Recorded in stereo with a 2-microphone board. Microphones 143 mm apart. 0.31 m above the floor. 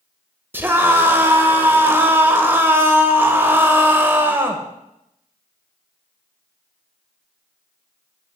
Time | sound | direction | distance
0.5 | a scream | 15° right (ahead or behind) | 1.0 m